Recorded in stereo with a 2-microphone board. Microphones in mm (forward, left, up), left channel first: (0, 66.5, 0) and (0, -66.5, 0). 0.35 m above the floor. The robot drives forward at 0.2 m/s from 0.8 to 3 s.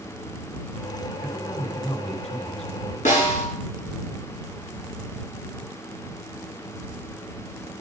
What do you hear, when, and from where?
1.2 s a man speaking: 50° left (ahead or behind), 3.5 m; by 3.0 s 55° left (ahead or behind), 3 m
3.0 s a snare drum: 75° left (ahead or behind), 5.5 m